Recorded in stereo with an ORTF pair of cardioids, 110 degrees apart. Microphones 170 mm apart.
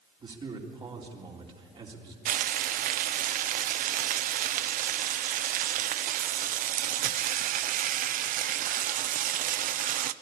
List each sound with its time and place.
0.2 s a man speaking: 30° right, 3.5 m
2.2 s frying: 55° right, 0.6 m